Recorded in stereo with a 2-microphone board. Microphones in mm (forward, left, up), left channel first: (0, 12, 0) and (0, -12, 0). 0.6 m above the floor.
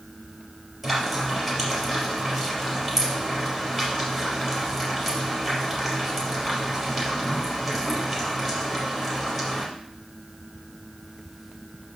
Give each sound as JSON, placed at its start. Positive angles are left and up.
{"t": 0.8, "sound": "frying", "side_deg": 5, "distance_m": 4.0}